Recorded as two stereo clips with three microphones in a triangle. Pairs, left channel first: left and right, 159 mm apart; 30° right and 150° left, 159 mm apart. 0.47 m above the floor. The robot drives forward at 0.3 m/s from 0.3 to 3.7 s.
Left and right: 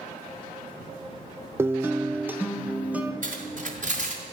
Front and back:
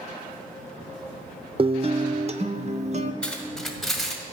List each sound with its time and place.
1.6 s a guitar: 160° right, 0.6 m; by 3.1 s 170° right, 1.0 m
3.2 s cutlery clinking: 115° right, 1.8 m; by 4.2 s 120° right, 1.8 m